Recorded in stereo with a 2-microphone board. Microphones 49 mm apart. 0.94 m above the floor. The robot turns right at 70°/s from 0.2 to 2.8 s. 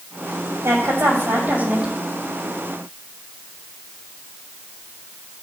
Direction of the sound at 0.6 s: 105° right.